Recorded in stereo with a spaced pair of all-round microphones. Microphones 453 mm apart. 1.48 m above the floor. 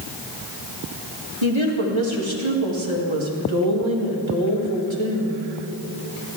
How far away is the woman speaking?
About 2.5 m.